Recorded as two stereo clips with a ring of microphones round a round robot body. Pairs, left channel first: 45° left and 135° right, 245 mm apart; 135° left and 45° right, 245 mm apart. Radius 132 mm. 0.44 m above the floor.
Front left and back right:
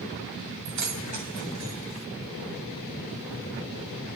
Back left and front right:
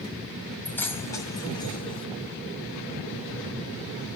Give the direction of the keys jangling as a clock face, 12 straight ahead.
5 o'clock.